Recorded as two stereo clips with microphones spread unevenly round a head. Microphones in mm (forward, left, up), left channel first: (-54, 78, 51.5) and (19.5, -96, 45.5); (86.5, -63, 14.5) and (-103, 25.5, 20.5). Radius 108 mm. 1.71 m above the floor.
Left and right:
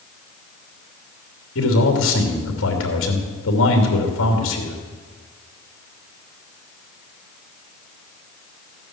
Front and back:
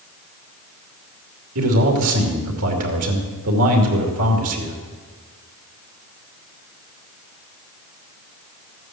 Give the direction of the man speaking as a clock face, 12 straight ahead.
8 o'clock.